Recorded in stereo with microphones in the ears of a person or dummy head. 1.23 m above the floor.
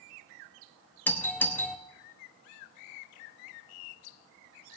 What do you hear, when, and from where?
1.1 s a doorbell: 10° left (ahead or behind), 0.9 m